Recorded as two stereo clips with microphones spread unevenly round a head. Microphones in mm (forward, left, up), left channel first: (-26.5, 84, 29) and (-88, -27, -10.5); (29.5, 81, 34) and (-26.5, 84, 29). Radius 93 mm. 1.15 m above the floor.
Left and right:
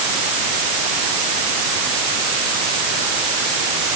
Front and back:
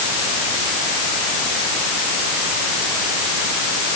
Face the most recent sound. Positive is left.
No sound to turn to.